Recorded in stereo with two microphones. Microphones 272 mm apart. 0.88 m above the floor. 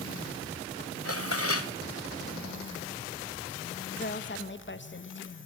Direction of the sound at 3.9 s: 45° left (ahead or behind).